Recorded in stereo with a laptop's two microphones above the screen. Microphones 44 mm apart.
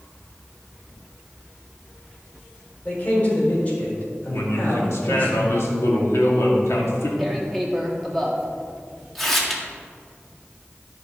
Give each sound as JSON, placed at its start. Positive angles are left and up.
{"t": 2.9, "sound": "a man speaking", "side_deg": 35, "distance_m": 4.0}
{"t": 4.3, "sound": "a man speaking", "side_deg": 70, "distance_m": 2.0}
{"t": 7.2, "sound": "tearing paper", "side_deg": 5, "distance_m": 1.7}